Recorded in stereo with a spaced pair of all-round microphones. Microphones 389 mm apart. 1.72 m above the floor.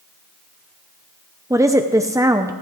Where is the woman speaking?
10° right (ahead or behind), 0.6 m.